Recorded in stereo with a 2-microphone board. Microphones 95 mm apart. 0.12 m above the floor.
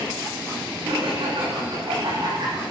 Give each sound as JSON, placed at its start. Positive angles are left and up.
{"t": 0.8, "sound": "laughter", "side_deg": -60, "distance_m": 8.0}